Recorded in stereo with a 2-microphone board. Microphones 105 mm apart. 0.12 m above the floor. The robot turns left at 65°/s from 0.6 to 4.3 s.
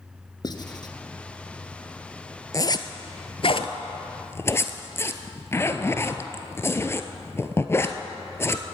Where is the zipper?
30° left (ahead or behind), 0.9 m; by 8.6 s 25° left (ahead or behind), 0.9 m.